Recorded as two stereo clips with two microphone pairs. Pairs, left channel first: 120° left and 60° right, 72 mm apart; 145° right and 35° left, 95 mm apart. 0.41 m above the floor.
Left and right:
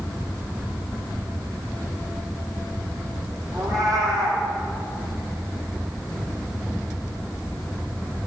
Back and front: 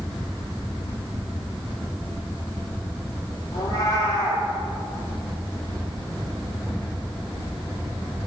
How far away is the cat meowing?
About 9.5 m.